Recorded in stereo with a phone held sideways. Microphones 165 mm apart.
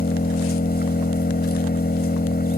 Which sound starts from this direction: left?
An engine running, at 0.0 s.